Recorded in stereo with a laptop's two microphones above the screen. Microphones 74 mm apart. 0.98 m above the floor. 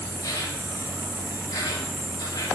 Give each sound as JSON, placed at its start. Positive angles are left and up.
{"t": 0.0, "sound": "an insect", "side_deg": 70, "distance_m": 3.0}